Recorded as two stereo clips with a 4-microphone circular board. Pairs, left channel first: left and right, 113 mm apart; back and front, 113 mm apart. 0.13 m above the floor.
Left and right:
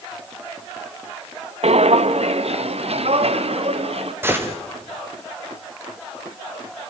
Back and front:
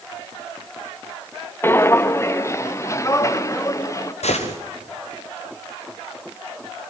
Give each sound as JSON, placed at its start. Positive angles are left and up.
{"t": 1.6, "sound": "footsteps", "azimuth_deg": -110, "distance_m": 0.8}
{"t": 4.2, "sound": "a gunshot", "azimuth_deg": -160, "distance_m": 4.0}